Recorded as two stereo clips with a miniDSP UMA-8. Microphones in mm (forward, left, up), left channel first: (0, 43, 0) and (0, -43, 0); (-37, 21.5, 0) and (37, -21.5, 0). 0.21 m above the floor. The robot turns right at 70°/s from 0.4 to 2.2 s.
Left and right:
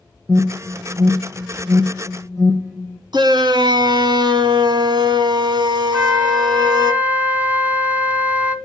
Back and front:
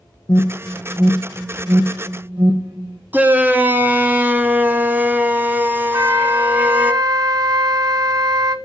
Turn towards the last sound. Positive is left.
turn(degrees=-25)